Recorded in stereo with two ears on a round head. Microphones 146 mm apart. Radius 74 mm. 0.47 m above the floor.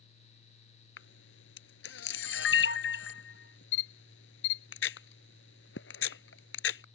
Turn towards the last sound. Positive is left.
turn(degrees=85)